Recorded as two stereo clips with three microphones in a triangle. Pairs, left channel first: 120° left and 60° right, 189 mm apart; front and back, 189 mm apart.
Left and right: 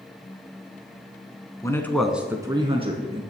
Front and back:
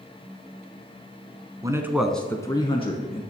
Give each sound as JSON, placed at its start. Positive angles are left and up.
{"t": 1.6, "sound": "a man speaking", "azimuth_deg": 155, "distance_m": 1.1}